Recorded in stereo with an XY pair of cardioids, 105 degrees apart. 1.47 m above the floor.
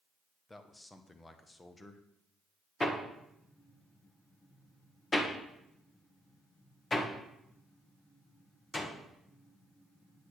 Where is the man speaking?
20° left, 1.0 m.